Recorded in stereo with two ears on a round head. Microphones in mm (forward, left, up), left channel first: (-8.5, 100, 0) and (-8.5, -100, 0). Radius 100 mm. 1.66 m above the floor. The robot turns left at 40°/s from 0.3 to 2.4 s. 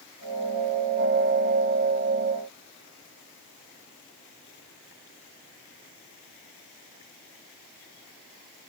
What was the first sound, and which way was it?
Only background noise.